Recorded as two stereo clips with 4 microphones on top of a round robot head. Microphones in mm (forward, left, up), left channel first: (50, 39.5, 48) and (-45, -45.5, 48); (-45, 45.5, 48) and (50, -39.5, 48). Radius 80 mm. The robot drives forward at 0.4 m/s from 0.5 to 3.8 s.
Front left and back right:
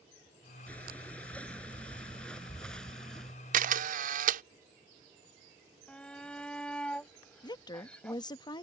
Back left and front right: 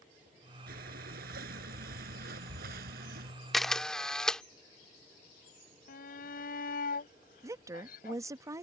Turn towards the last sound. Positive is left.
turn(degrees=10)